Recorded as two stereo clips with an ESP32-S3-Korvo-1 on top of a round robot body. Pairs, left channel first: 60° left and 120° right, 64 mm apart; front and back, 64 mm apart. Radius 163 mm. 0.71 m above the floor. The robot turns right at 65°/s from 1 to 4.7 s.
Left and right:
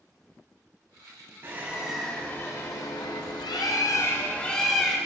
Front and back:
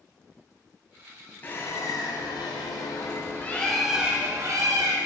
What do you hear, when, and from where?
1.4 s a bird: 65° right, 0.9 m; by 5.0 s 150° left, 0.9 m